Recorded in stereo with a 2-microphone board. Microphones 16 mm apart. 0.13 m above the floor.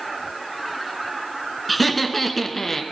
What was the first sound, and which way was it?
Laughter, centre (ahead or behind).